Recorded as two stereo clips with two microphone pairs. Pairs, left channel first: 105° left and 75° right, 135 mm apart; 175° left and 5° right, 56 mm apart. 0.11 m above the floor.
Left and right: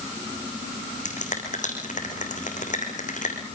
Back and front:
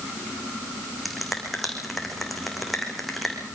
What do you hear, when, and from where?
1.1 s a finger snap: 85° left, 5.5 m